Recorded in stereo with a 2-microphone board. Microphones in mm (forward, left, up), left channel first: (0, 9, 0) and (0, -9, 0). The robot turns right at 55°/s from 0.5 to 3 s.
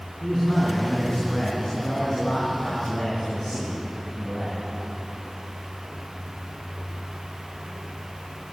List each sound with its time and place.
0.2 s a man speaking: 45° left, 4.5 m; by 4.6 s straight behind, 4.5 m